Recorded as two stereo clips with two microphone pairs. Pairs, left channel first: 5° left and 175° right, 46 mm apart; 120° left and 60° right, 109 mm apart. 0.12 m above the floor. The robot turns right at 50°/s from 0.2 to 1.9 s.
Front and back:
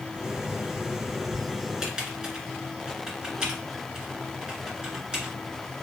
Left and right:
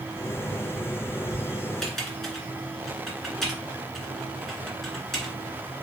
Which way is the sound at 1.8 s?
165° right.